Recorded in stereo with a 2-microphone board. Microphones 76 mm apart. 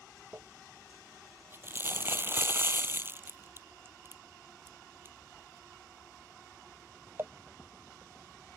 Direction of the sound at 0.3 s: 30° right (ahead or behind).